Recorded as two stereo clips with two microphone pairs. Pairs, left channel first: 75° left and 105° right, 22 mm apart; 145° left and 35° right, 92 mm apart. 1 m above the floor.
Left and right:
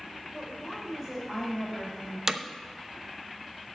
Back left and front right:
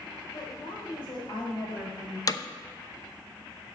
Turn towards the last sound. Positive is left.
turn(degrees=-170)